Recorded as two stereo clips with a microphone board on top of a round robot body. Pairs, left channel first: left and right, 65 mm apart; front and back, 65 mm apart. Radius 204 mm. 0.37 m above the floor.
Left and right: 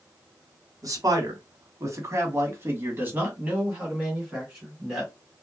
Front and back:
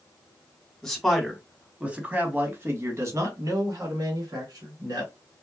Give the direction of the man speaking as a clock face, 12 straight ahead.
3 o'clock.